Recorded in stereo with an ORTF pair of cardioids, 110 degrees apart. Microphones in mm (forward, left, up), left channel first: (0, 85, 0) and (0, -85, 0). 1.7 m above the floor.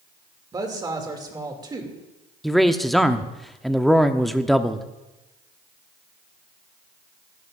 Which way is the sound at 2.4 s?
Straight ahead.